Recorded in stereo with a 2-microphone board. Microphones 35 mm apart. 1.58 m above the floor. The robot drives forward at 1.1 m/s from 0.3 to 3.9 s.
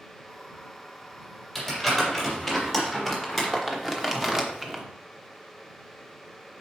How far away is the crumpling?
About 3.5 m.